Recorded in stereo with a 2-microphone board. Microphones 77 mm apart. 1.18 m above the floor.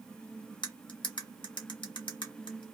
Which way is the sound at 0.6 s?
75° left (ahead or behind).